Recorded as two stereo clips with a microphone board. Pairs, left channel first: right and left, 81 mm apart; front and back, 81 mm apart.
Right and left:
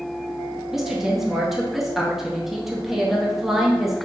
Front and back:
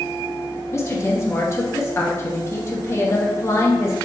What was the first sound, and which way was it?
A woman speaking, 5° left.